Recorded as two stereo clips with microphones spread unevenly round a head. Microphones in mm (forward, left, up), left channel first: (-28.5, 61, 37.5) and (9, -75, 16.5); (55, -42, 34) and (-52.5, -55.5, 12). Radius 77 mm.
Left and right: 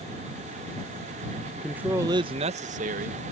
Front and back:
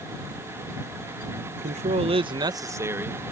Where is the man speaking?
165° right; by 3.2 s 100° right.